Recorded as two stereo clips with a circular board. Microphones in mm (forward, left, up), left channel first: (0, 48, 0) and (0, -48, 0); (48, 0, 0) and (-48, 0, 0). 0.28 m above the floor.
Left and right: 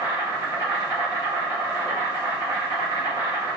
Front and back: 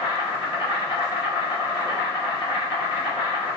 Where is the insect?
120° left, 1.7 m.